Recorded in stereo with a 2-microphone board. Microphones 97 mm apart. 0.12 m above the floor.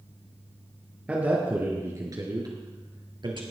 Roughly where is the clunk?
No clunk in this recording.